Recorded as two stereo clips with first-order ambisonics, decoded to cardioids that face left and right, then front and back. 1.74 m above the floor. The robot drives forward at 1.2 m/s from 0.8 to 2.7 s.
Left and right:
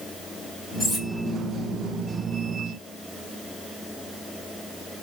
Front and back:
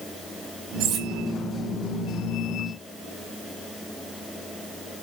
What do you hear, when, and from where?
0.8 s cutlery clinking: 150° left, 2.5 m; by 1.1 s 155° left, 2.5 m